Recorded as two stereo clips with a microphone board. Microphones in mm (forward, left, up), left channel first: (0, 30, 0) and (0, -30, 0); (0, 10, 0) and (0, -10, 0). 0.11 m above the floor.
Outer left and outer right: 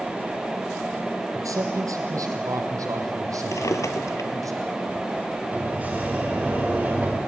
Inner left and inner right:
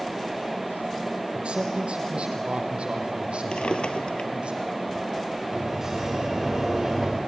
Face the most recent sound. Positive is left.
turn(degrees=-25)  # may be behind; listen again after turning